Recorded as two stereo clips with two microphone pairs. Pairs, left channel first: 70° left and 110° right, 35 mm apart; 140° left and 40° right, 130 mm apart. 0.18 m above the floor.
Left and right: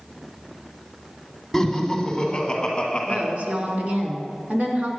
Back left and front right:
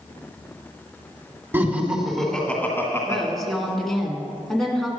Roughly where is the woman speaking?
Behind right.